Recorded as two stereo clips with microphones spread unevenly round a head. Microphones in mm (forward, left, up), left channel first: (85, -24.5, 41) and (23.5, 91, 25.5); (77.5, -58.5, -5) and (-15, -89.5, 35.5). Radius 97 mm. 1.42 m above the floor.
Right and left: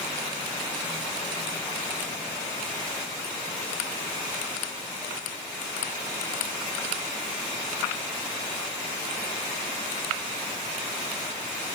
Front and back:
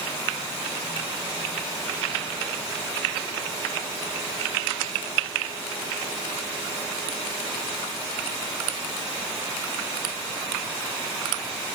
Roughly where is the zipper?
No zipper in this recording.